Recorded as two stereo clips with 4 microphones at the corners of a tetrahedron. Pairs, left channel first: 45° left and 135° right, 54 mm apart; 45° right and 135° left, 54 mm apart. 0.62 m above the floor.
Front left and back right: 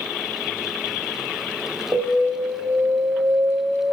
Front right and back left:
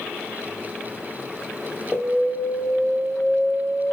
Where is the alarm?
135° right, 3.5 m.